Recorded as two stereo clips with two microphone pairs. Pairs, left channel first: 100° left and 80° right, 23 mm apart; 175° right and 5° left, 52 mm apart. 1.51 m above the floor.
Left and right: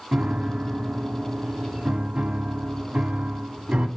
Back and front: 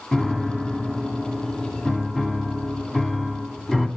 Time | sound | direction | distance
0.1 | a piano | 95° right | 1.8 m